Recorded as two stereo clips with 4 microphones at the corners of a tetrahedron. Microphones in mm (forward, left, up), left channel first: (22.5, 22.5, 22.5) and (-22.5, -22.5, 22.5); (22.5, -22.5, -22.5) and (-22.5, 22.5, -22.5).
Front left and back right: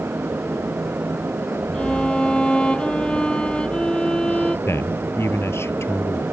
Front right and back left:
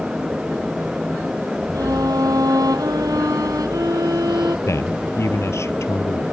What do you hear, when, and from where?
1.7 s a violin: 120° left
4.7 s a man speaking: straight ahead